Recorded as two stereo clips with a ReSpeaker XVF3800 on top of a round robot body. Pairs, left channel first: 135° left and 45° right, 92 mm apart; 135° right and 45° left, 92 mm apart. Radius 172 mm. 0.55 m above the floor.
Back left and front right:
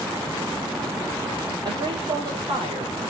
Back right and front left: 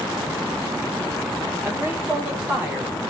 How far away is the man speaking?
About 3 m.